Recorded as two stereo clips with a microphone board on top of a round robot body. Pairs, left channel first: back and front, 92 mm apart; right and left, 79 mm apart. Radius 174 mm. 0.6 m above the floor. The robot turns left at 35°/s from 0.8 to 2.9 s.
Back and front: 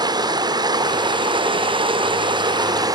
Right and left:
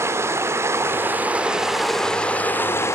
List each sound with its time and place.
0.0 s running water: 35° left, 2.5 m; by 3.0 s 40° right, 2.5 m